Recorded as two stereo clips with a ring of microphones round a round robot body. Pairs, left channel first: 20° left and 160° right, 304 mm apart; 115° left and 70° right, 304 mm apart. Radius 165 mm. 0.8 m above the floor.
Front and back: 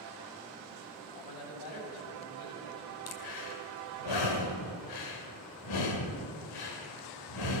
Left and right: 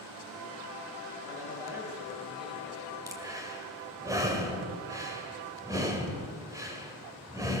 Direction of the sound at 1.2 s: 10° left.